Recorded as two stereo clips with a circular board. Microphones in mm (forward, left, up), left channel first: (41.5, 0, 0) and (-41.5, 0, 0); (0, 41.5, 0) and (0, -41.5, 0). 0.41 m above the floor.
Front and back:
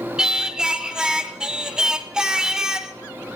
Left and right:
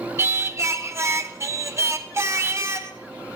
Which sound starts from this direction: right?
Singing, at 0.2 s.